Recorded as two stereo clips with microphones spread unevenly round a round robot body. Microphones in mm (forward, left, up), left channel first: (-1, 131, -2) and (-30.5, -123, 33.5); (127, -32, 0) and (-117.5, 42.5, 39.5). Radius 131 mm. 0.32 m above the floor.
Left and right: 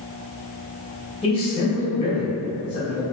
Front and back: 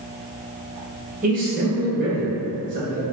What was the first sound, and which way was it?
A man speaking, 115° left.